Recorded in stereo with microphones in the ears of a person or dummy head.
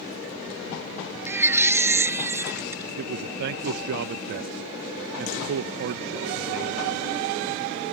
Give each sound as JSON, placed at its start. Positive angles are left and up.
{"t": 1.3, "sound": "a baby crying", "side_deg": -10}
{"t": 3.0, "sound": "a man speaking", "side_deg": -60}